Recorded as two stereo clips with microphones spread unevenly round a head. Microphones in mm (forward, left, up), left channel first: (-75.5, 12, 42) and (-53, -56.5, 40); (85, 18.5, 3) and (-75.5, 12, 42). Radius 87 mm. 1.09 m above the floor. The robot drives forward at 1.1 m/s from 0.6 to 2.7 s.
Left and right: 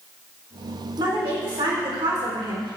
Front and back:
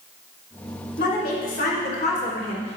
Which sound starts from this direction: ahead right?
A woman speaking, at 1.0 s.